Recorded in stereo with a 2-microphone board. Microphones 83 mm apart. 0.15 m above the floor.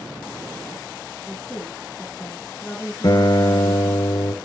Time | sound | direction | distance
1.3 | a woman speaking | 10° left (ahead or behind) | 2 m
3.0 | a guitar | 50° left (ahead or behind) | 1.3 m